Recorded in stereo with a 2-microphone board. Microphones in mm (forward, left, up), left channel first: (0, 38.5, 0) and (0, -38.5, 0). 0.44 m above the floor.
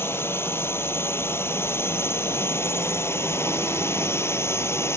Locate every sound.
0.0 s a drone: 30° left (ahead or behind)